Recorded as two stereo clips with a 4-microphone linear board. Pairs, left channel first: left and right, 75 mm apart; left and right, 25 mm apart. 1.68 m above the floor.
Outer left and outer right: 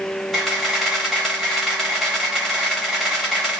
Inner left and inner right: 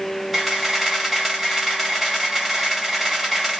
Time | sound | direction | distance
0.3 | a camera shutter | centre (ahead or behind) | 1.3 m